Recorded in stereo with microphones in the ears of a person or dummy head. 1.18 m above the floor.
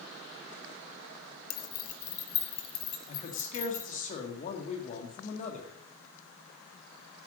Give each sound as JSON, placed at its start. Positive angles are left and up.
{"t": 1.5, "sound": "keys jangling", "side_deg": 60, "distance_m": 1.1}
{"t": 3.1, "sound": "a man speaking", "side_deg": 40, "distance_m": 2.0}